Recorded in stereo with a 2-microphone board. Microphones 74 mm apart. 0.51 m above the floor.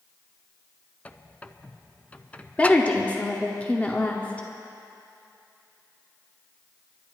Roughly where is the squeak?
Centre.